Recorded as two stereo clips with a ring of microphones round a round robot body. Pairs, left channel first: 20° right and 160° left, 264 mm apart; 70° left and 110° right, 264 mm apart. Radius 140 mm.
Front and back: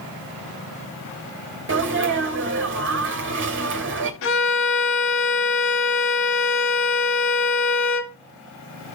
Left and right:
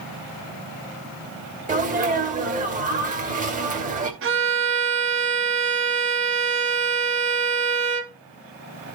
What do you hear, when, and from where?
1.7 s a sneeze: 170° right, 2.0 m
4.2 s a violin: 70° right, 1.0 m